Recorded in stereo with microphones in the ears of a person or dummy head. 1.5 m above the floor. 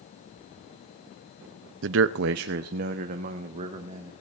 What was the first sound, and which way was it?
A man speaking, 70° right (ahead or behind).